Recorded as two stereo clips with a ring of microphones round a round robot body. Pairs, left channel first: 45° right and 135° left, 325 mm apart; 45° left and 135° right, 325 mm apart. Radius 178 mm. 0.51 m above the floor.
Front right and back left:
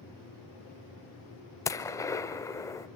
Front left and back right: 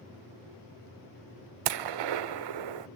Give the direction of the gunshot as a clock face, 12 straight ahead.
4 o'clock.